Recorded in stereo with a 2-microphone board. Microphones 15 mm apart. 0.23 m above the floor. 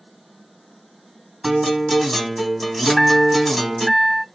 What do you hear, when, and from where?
1.4 s a guitar: 20° left (ahead or behind), 1.8 m
2.9 s a chime: 15° left (ahead or behind), 2 m